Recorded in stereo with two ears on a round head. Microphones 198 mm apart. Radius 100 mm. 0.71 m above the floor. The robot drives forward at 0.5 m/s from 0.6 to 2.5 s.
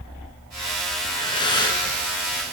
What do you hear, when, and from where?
1.0 s breathing: 20° left (ahead or behind), 8.5 m